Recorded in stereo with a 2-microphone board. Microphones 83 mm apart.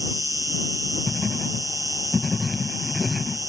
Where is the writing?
5° right (ahead or behind).